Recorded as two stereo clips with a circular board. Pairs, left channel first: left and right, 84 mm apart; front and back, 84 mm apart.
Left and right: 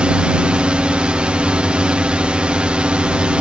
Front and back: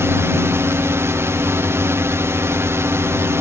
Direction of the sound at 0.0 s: 160° right.